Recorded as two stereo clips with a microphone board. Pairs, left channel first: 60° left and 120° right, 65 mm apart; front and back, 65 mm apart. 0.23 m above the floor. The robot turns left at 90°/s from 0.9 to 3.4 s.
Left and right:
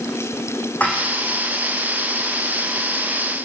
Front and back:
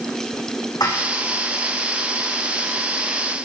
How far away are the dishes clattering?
About 9.5 m.